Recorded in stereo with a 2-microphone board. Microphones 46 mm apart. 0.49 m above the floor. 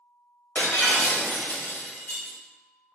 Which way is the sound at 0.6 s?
45° left (ahead or behind).